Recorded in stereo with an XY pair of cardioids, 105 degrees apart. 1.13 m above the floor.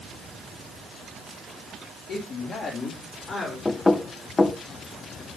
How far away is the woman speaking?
About 3 m.